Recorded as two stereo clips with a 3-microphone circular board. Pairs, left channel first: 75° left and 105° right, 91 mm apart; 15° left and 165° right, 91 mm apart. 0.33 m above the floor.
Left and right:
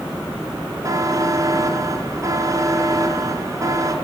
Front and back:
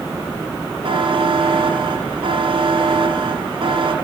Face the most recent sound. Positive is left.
turn(degrees=-155)